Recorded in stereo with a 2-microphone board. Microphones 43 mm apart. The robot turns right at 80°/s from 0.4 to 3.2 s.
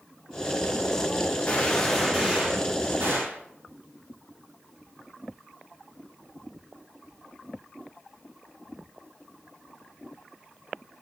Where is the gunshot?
140° left, 2.5 m; by 3.4 s 80° right, 2.5 m.